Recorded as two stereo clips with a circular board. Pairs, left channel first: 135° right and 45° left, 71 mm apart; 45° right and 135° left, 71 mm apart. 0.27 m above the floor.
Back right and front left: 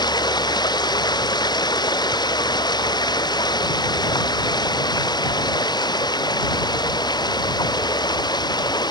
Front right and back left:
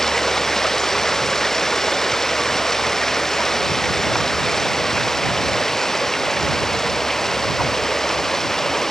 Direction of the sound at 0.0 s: 130° right.